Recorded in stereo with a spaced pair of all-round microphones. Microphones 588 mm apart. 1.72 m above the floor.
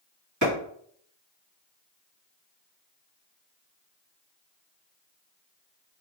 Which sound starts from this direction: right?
A clap, at 0.4 s.